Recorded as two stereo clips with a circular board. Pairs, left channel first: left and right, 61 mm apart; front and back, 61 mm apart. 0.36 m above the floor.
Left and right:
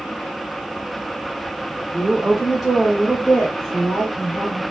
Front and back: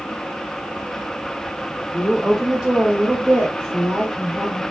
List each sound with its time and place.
1.9 s a woman speaking: 50° right, 0.9 m; by 4.6 s 165° left, 1.6 m